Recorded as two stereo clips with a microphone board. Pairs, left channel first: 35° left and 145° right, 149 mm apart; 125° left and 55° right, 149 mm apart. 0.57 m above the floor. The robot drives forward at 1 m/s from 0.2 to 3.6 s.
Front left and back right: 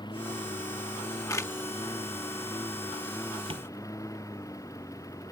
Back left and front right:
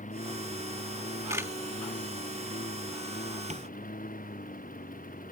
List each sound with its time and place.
0.0 s a lawn mower: 95° left; by 5.3 s 100° left
1.3 s a camera shutter: 5° right; by 1.5 s 10° right
3.5 s tapping: 95° right